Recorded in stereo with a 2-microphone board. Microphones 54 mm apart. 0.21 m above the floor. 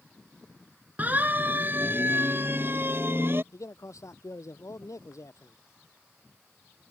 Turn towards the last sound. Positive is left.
turn(degrees=70)  # may be behind; listen again after turning